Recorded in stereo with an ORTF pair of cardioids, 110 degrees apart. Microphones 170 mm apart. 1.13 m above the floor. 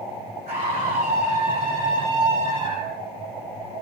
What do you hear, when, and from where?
0.5 s a scream: 40° right, 7.5 m; by 3.0 s 45° right, 8.5 m